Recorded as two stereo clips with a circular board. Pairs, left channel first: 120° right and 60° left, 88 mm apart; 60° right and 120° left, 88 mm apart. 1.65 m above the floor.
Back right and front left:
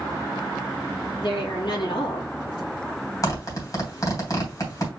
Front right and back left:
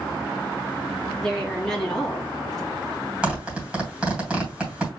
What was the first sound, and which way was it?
A woman speaking, 145° right.